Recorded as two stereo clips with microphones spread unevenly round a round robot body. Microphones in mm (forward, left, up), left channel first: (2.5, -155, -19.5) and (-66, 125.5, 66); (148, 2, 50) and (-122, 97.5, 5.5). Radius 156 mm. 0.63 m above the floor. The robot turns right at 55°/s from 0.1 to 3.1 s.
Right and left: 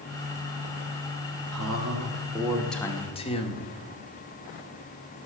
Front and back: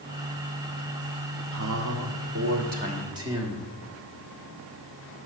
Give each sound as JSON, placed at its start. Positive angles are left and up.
{"t": 1.5, "sound": "a man speaking", "azimuth_deg": 140, "distance_m": 1.7}